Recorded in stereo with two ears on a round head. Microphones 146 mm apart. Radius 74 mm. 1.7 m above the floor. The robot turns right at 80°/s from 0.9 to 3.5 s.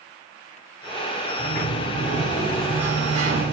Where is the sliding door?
75° left, 4.5 m; by 3.5 s 115° right, 4.5 m.